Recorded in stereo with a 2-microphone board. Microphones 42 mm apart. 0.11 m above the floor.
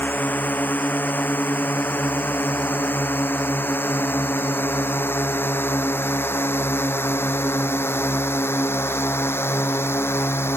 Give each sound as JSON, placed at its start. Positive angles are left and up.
{"t": 0.0, "sound": "a drone", "side_deg": 50}